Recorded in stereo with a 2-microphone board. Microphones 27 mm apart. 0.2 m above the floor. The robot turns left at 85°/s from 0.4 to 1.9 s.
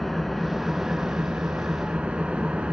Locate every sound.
0.0 s an engine running: 5° left, 0.8 m; by 2.7 s 125° right, 0.8 m